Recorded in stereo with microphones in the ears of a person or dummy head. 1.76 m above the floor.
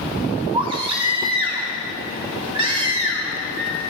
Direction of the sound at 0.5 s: 20° right (ahead or behind).